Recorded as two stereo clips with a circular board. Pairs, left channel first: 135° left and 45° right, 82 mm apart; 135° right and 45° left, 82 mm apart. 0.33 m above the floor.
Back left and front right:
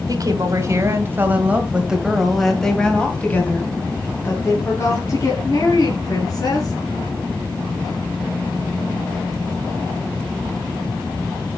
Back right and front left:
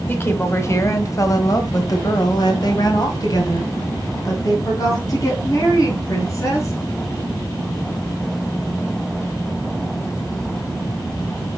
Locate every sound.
0.1 s a woman speaking: 80° right, 2 m; by 6.7 s 175° left, 4 m